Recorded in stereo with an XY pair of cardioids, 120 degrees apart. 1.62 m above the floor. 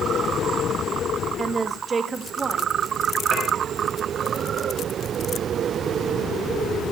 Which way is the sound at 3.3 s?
50° right.